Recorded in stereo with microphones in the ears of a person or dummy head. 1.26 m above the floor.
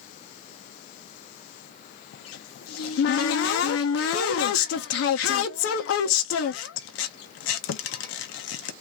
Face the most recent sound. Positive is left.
turn(degrees=70)  # may be behind; listen again after turning